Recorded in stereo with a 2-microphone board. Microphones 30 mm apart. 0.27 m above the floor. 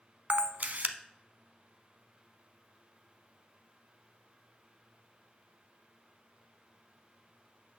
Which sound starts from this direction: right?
A camera shutter, at 0.3 s.